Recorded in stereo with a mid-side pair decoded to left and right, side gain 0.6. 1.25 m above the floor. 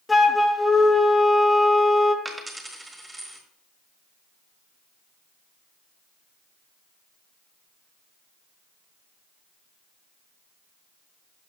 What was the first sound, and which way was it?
A flute, 15° left.